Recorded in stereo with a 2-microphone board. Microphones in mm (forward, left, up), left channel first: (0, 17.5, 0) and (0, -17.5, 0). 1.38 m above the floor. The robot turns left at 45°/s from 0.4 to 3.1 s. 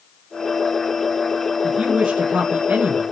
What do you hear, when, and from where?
1.6 s a woman speaking: 5° right, 1.8 m; by 3.0 s 70° right, 1.8 m